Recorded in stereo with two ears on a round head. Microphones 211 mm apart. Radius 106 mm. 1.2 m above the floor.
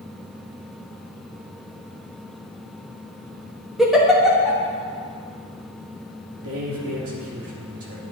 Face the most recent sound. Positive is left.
turn(degrees=-65)  # may be behind; listen again after turning